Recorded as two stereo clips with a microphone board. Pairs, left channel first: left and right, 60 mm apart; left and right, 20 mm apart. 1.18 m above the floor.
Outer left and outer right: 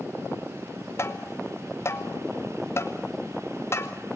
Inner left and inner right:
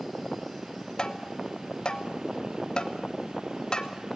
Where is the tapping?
50° left (ahead or behind), 2 m.